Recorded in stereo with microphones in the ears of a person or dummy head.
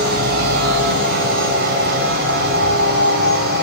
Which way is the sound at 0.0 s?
50° right (ahead or behind).